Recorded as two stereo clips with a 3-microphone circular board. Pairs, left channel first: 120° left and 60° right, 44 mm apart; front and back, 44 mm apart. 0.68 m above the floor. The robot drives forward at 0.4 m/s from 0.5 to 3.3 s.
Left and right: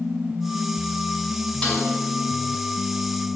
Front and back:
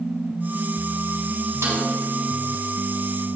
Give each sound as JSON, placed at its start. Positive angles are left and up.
{"t": 1.6, "sound": "a snare drum", "azimuth_deg": -170, "distance_m": 5.0}